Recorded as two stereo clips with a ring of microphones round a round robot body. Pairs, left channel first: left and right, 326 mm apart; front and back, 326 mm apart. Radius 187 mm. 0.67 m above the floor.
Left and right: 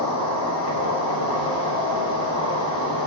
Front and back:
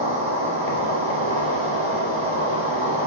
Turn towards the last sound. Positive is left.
turn(degrees=50)